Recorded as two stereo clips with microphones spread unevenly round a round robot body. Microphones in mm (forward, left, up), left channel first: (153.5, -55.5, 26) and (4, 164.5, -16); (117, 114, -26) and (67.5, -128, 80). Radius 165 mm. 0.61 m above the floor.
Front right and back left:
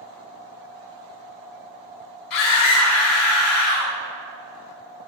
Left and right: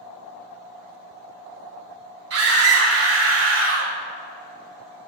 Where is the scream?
75° right, 5.5 m; by 3.9 s 60° right, 5.5 m.